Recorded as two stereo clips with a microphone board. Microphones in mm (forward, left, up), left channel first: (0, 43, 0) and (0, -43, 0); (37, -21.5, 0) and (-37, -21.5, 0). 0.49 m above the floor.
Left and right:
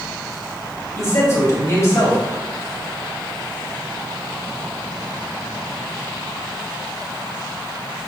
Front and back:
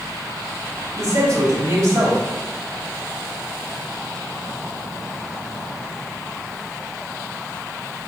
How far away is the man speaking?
About 2.5 m.